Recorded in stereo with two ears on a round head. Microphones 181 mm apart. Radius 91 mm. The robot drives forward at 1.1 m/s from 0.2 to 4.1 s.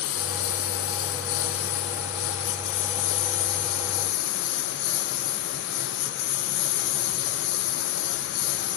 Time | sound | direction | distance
0.0 | a lawn mower | 85° left | ?